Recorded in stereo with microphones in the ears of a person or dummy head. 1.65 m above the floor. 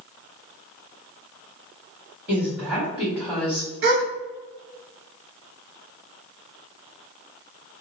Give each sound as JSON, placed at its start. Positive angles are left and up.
{"t": 2.3, "sound": "a woman speaking", "side_deg": -5, "distance_m": 1.5}
{"t": 3.8, "sound": "a gasp", "side_deg": -60, "distance_m": 0.7}